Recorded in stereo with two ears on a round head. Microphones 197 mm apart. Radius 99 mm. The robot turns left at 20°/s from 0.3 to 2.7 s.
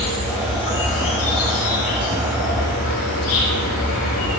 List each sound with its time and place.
0.0 s an insect: 120° left, 3 m; by 4.4 s 75° left, 3 m